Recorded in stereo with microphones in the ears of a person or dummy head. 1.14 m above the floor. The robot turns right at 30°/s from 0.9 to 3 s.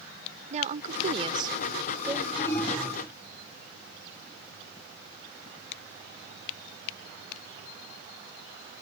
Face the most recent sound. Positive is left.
turn(degrees=0)  # may be behind; listen again after turning